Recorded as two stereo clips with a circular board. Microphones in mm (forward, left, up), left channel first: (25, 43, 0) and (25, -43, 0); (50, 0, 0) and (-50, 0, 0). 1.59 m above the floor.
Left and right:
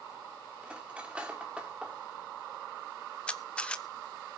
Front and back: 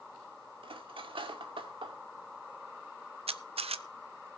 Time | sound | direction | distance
0.6 | cutlery clinking | 165° right | 2 m
3.3 | a camera shutter | 165° left | 0.7 m